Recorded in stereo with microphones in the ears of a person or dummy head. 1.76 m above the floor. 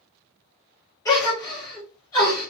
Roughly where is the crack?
No crack in this recording.